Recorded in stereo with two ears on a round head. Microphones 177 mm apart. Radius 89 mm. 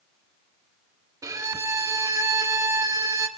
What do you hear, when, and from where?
1.2 s a violin: 20° right (ahead or behind), 1.0 m